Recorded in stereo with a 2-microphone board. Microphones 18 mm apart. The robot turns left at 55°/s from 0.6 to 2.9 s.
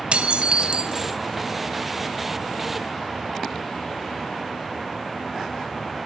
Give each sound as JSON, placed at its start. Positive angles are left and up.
{"t": 0.1, "sound": "dishes clattering", "azimuth_deg": -105, "distance_m": 2.5}